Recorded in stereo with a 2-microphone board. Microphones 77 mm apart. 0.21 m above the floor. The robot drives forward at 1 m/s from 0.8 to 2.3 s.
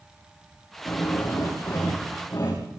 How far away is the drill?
About 9.5 m.